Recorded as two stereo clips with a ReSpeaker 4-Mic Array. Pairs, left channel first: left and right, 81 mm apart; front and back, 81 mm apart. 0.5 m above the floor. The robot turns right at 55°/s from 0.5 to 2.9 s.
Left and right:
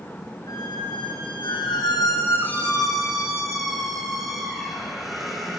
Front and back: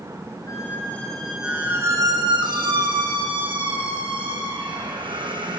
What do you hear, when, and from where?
0.5 s a squeak: 50° left, 6.5 m; by 5.6 s straight behind, 6.5 m